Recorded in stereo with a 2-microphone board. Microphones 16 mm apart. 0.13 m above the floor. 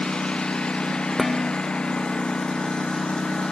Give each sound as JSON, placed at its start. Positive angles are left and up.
{"t": 0.0, "sound": "a lawn mower", "side_deg": 70}
{"t": 1.2, "sound": "dishes clattering", "side_deg": 15}